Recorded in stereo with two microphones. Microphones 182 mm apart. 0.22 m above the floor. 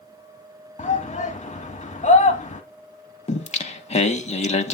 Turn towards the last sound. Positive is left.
turn(degrees=35)  # may be behind; listen again after turning